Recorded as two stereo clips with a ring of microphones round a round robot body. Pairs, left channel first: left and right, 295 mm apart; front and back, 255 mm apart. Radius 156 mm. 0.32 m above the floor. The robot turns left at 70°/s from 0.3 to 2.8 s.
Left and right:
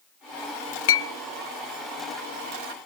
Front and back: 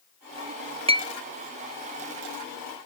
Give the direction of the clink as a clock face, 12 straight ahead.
8 o'clock.